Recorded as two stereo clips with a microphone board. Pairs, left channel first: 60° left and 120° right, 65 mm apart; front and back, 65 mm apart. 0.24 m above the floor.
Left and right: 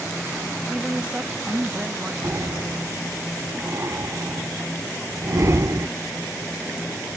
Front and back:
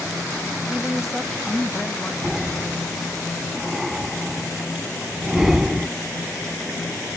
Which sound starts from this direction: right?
Breathing, at 2.2 s.